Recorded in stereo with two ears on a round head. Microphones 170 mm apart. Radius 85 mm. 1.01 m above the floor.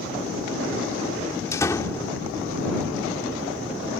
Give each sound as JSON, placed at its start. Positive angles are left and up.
{"t": 1.5, "sound": "a door slam", "side_deg": 15}